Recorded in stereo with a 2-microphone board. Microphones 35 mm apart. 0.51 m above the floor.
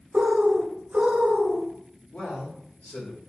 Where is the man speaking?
55° left (ahead or behind), 1.7 m.